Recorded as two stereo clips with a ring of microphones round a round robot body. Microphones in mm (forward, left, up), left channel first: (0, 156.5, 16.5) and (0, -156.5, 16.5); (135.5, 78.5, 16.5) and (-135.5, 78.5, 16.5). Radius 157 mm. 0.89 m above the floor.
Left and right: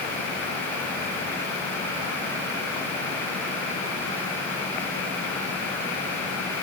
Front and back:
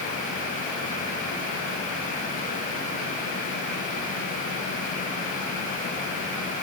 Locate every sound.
Only background noise.